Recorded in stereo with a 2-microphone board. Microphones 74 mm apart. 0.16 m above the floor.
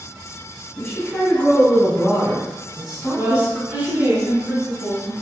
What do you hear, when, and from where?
0.8 s a woman speaking: 20° left (ahead or behind), 1.6 m; by 4.2 s 20° right (ahead or behind), 1.4 m
3.1 s a woman speaking: 40° right (ahead or behind), 1.6 m